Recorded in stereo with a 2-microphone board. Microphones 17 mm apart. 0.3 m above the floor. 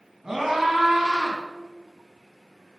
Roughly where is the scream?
Right.